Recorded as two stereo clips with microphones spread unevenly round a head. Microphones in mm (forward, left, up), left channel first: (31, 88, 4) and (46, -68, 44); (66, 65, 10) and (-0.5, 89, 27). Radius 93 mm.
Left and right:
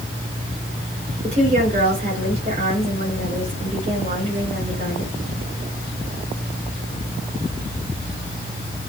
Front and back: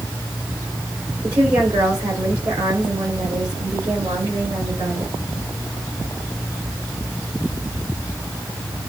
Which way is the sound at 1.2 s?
140° right.